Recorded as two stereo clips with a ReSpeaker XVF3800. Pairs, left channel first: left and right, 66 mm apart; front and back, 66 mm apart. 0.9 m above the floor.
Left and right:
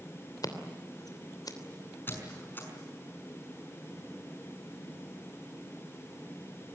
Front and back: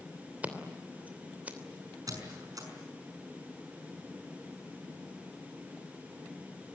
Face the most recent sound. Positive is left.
turn(degrees=150)